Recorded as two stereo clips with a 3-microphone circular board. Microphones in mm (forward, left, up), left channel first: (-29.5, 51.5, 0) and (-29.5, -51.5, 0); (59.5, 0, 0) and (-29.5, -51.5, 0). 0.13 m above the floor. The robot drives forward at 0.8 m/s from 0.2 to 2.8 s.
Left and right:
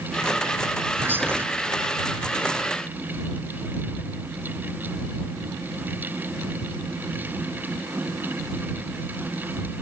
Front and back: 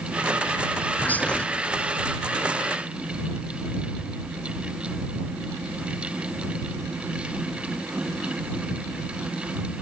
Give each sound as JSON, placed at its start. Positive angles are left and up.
{"t": 1.0, "sound": "whispering", "azimuth_deg": -30, "distance_m": 1.8}